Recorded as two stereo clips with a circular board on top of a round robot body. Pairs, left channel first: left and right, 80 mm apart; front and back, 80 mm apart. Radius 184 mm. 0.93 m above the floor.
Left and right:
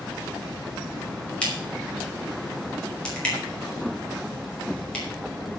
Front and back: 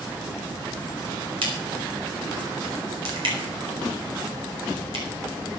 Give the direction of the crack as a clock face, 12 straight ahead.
6 o'clock.